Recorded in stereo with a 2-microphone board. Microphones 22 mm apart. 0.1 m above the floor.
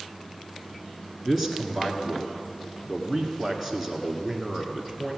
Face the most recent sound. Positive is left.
turn(degrees=0)  # may be behind; listen again after turning